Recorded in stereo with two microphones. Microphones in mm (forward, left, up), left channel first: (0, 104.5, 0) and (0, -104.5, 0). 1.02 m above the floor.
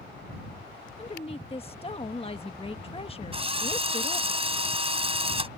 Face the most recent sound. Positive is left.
turn(degrees=-30)  # may be behind; listen again after turning